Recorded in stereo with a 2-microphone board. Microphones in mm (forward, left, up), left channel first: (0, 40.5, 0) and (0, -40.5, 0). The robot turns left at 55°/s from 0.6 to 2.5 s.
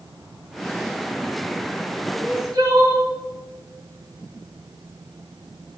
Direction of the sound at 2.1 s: 25° right (ahead or behind).